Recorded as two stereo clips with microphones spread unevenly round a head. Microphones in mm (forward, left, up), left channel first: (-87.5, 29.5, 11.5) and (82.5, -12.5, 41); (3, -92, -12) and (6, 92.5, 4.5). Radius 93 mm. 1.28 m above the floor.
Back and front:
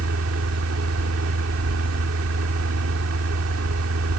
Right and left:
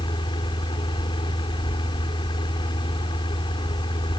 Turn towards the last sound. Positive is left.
turn(degrees=-25)